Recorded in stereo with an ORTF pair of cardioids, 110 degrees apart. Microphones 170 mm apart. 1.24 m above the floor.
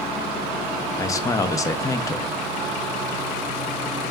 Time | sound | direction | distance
1.0 | a man speaking | 20° left | 0.5 m